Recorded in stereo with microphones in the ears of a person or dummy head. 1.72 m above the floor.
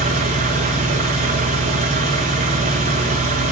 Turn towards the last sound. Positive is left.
turn(degrees=-35)  # may be behind; listen again after turning